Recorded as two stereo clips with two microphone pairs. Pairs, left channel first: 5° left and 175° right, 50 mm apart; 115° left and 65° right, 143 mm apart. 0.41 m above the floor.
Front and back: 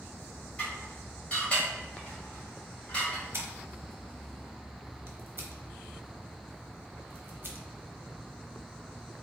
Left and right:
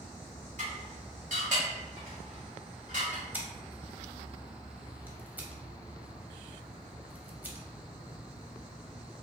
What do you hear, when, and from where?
0.6 s dishes clattering: 60° right, 1.4 m
3.3 s scissors: 140° right, 0.7 m